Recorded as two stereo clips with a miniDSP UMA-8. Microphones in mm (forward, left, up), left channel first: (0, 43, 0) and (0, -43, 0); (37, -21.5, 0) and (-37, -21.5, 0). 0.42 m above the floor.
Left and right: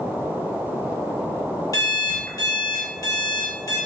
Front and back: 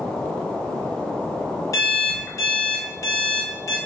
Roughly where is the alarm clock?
Ahead left.